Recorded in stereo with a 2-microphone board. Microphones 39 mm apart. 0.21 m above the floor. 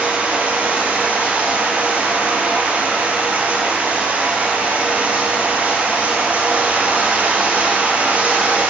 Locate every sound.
0.0 s running water: 35° right (ahead or behind), 0.8 m